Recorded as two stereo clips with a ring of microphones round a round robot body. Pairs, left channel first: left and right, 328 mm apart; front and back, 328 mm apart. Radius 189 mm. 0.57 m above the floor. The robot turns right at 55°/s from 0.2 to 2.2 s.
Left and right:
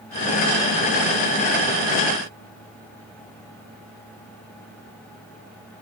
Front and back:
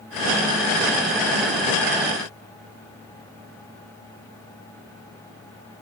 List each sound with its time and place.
Only background noise.